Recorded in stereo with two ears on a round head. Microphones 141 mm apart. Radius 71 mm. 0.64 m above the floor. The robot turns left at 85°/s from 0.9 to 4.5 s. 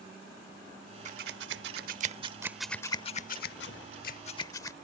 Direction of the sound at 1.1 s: 45° right (ahead or behind).